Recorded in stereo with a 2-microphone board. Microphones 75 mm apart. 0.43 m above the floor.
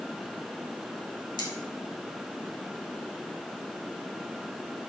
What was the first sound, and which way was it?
Cutlery clinking, 75° left (ahead or behind).